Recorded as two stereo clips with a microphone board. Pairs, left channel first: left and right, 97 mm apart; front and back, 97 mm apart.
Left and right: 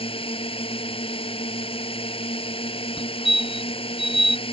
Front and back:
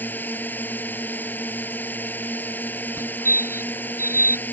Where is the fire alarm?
115° left.